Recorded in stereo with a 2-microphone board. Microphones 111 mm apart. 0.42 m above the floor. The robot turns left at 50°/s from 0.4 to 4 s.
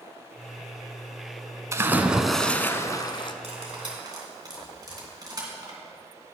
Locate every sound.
1.7 s a splash: 150° right, 0.6 m; by 3.3 s 130° left, 0.6 m
3.4 s cutlery clinking: 60° right (ahead or behind), 2.5 m; by 5.8 s 35° right (ahead or behind), 2.5 m